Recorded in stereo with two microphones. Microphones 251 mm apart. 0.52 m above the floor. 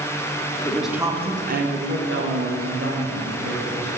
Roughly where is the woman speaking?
Centre.